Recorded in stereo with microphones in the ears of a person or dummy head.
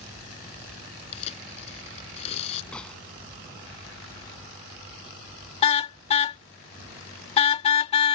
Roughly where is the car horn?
Left.